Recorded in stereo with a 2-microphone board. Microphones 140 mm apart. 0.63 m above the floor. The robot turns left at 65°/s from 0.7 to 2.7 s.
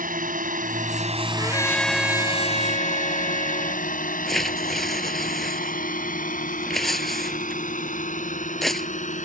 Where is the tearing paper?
Centre (ahead or behind).